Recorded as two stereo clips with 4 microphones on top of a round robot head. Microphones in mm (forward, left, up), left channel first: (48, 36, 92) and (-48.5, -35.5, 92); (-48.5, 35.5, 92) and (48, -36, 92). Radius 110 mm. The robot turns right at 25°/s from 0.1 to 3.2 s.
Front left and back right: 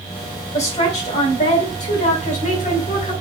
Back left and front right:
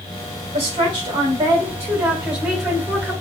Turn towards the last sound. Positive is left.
turn(degrees=70)